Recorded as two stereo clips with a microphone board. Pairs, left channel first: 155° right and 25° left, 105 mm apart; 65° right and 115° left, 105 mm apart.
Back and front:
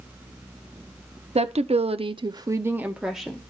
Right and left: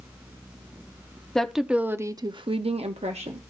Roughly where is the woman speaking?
Ahead.